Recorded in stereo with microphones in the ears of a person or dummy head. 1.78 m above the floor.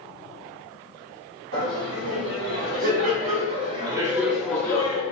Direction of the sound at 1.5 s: 65° right (ahead or behind).